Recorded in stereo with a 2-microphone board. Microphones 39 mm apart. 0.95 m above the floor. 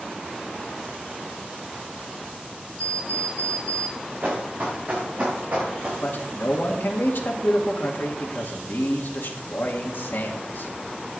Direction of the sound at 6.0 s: 65° left (ahead or behind).